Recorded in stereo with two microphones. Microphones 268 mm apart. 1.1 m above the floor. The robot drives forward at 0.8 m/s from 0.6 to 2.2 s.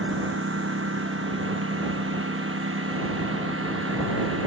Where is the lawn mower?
50° right (ahead or behind); by 4.5 s 55° right (ahead or behind).